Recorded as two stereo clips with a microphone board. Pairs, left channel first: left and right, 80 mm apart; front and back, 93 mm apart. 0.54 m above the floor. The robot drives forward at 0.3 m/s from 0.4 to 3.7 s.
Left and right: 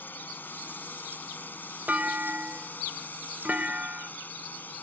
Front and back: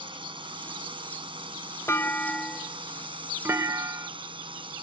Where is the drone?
155° left.